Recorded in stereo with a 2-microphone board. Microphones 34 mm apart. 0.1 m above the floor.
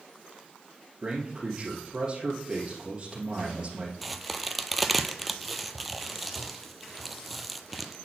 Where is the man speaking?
25° right (ahead or behind), 2 m.